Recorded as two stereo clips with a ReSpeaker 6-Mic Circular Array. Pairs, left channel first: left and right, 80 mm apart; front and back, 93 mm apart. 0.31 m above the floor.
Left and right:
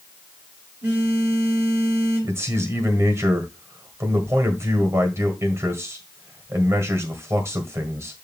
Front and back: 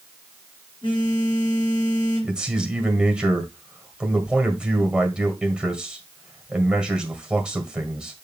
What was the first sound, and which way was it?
A phone buzzing, 25° right.